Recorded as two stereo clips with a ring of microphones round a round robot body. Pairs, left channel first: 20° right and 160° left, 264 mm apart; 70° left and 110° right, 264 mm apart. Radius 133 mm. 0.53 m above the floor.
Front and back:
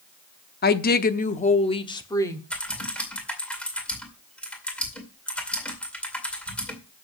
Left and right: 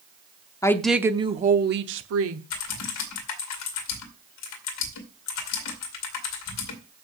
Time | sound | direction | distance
0.6 | a woman speaking | 5° right | 0.9 m
2.5 | typing on a keyboard | 65° left | 2 m